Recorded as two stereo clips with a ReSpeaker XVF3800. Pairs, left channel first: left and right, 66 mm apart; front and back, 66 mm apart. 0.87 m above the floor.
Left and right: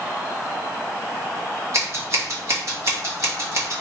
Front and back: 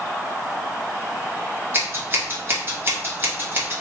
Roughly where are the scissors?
Behind right.